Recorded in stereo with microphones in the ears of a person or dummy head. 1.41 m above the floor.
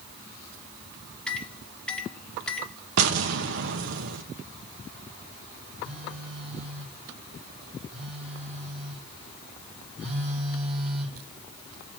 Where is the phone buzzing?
Centre (ahead or behind), 5.5 m.